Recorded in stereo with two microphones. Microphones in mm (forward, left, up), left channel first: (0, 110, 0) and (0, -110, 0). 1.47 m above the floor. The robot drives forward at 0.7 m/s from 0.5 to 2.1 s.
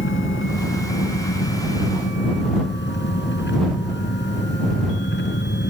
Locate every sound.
0.0 s an engine running: 65° left (ahead or behind); by 5.7 s 55° left (ahead or behind)